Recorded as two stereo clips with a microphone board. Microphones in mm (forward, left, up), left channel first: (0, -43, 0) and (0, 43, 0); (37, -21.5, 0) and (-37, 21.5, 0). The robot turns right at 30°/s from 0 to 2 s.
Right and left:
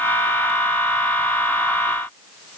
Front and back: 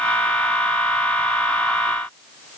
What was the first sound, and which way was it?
Only background noise.